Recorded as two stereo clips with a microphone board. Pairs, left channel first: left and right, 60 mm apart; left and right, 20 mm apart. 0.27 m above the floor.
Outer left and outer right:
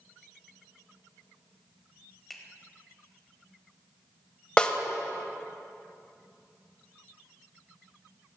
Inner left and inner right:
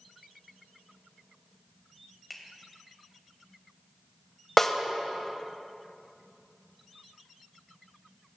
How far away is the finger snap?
About 1.1 m.